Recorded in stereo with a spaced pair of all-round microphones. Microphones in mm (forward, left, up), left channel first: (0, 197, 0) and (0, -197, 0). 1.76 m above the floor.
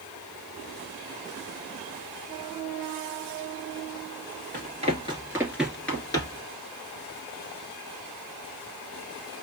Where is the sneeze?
No sneeze in this recording.